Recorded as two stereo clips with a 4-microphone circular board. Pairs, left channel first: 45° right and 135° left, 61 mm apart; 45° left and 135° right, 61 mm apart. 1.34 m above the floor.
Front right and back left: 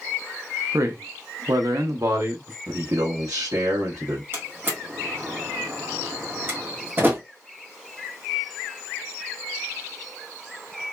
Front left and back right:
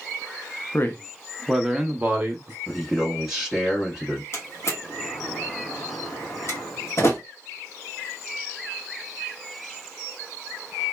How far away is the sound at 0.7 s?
About 0.7 m.